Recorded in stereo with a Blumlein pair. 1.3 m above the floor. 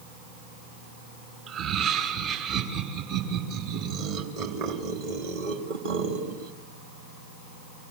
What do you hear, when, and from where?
1.5 s laughter: 35° right, 4.5 m; by 6.5 s 60° right, 2.5 m